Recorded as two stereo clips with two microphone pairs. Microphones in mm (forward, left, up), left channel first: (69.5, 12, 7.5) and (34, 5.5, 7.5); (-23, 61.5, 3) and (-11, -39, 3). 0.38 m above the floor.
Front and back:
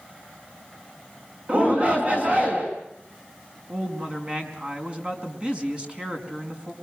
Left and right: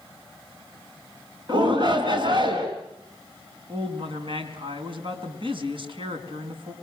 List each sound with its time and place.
1.5 s a shout: 120° right, 4 m
3.7 s a woman speaking: 110° right, 4.5 m